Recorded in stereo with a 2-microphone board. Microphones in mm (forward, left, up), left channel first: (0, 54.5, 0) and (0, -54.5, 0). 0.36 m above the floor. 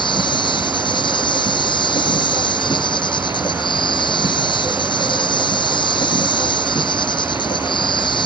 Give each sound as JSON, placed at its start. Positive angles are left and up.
{"t": 0.0, "sound": "an insect", "side_deg": 45}